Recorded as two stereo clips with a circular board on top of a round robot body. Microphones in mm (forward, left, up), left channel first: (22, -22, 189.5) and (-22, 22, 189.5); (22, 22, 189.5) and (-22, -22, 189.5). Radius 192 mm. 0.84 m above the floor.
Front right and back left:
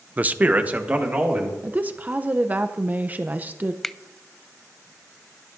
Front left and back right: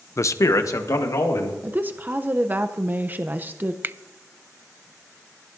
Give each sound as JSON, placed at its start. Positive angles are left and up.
{"t": 0.2, "sound": "a man speaking", "azimuth_deg": 75, "distance_m": 0.6}
{"t": 1.6, "sound": "a woman speaking", "azimuth_deg": -175, "distance_m": 0.7}
{"t": 3.8, "sound": "a finger snap", "azimuth_deg": -130, "distance_m": 0.6}